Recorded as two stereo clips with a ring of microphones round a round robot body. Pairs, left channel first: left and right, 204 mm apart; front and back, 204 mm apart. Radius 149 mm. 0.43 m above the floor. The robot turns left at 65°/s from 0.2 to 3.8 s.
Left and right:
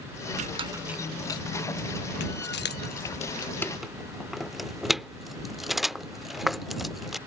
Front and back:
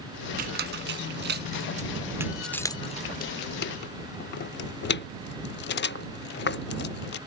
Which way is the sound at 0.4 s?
140° right.